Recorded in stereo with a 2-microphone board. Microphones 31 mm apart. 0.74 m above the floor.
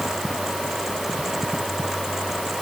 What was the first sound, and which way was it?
Only background noise.